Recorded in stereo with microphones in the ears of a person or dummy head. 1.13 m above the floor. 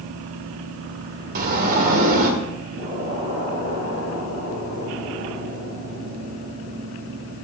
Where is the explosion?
45° right (ahead or behind), 4.5 m.